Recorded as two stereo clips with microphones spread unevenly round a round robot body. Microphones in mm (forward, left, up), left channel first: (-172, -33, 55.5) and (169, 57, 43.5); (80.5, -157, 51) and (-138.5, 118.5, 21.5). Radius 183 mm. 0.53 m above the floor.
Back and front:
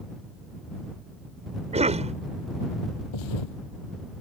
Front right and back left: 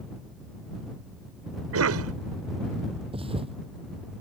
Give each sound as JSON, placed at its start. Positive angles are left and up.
{"t": 1.7, "sound": "a cough", "azimuth_deg": 85}
{"t": 3.1, "sound": "a thud", "azimuth_deg": -155}